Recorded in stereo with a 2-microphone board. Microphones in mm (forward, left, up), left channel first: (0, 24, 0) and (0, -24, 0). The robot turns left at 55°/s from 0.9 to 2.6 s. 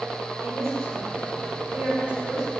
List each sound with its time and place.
0.4 s a woman speaking: 85° right, 6 m; by 2.5 s 5° right (ahead or behind), 6 m